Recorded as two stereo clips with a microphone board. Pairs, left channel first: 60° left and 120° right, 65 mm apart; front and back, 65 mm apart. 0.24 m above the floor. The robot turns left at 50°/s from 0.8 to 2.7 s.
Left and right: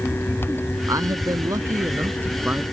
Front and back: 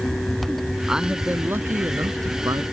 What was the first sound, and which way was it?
A man speaking, 100° right.